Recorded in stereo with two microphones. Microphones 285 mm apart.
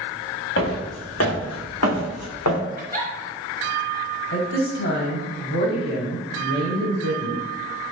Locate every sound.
0.6 s footsteps: 45° left (ahead or behind), 1.8 m; by 2.6 s 80° left, 1.0 m
2.8 s a giggle: 30° right (ahead or behind), 0.8 m
4.3 s a woman speaking: 45° left (ahead or behind), 1.2 m